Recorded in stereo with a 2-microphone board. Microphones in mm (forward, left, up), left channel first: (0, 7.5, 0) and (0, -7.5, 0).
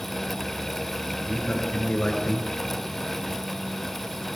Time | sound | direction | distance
1.2 | a man speaking | 50° left (ahead or behind) | 7.5 m